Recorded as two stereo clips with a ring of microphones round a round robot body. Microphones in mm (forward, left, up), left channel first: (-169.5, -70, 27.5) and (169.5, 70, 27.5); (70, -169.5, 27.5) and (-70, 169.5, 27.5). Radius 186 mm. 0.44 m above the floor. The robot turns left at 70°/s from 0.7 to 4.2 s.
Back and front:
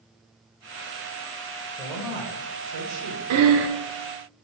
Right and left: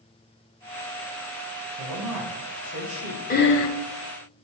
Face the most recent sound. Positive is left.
turn(degrees=-70)